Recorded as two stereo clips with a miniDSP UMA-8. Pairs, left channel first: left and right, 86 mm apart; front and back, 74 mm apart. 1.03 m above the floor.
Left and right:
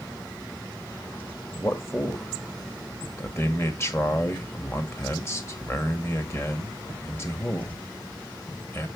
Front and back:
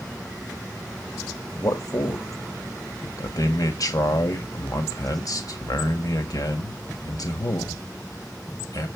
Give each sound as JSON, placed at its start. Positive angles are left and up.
{"t": 1.6, "sound": "a man speaking", "azimuth_deg": 35, "distance_m": 1.6}